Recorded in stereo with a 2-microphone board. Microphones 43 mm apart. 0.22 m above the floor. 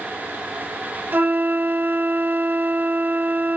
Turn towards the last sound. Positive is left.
turn(degrees=-50)  # may be behind; listen again after turning